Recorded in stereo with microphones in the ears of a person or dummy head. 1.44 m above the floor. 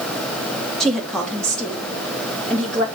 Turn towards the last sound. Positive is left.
turn(degrees=0)  # may be behind; listen again after turning